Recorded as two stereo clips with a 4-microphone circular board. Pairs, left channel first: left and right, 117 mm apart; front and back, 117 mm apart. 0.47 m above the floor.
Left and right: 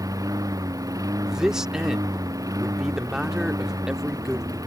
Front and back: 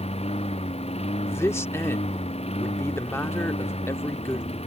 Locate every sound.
0.0 s a lawn mower: 30° right
1.3 s a man speaking: 15° right